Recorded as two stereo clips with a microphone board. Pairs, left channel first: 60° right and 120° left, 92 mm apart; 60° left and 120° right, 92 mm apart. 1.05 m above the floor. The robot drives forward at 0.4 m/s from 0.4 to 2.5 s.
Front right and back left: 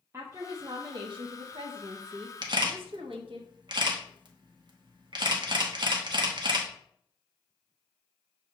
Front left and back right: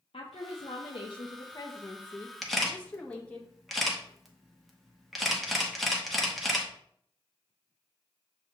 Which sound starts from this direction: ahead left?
A woman speaking, at 0.1 s.